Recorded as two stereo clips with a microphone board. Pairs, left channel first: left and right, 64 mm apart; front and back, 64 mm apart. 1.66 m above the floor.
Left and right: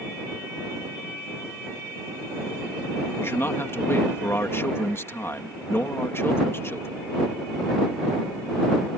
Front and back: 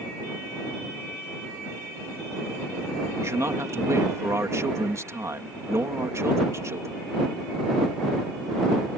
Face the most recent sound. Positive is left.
turn(degrees=140)